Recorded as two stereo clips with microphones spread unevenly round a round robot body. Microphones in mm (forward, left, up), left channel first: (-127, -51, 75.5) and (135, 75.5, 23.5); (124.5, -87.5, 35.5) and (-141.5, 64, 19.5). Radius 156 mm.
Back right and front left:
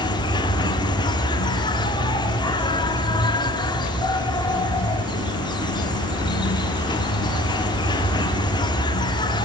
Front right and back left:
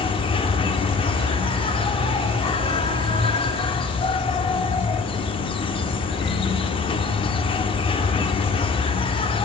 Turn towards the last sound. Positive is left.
turn(degrees=-75)